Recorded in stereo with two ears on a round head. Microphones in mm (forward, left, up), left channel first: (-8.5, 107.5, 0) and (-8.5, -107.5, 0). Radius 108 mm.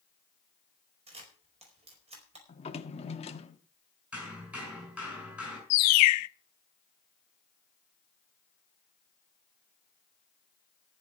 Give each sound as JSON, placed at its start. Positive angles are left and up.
{"t": 1.1, "sound": "a camera shutter", "side_deg": -25, "distance_m": 4.5}
{"t": 2.5, "sound": "a drawer", "side_deg": 25, "distance_m": 1.1}
{"t": 4.1, "sound": "hammering", "side_deg": -5, "distance_m": 6.5}
{"t": 5.7, "sound": "a bird", "side_deg": 70, "distance_m": 0.6}